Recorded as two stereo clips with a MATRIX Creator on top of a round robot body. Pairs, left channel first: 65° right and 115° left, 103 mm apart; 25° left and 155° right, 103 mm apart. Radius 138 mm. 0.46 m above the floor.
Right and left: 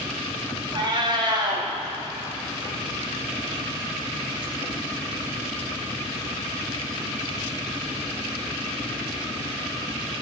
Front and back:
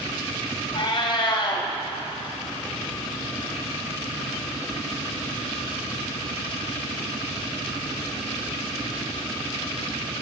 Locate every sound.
0.8 s a cat meowing: 65° left, 1.8 m